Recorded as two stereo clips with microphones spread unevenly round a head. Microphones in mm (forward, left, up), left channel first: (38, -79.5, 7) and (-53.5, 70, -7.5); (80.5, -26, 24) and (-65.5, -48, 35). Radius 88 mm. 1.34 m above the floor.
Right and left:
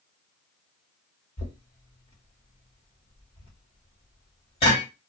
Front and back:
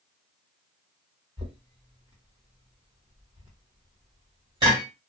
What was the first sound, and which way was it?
Knocking, 115° right.